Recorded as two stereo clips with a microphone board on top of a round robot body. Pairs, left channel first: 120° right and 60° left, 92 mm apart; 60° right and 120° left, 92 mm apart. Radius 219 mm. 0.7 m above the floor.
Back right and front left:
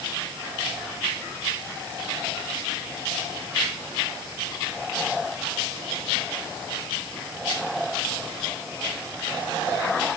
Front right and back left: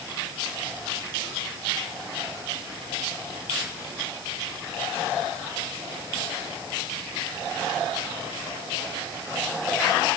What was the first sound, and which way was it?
Only background noise.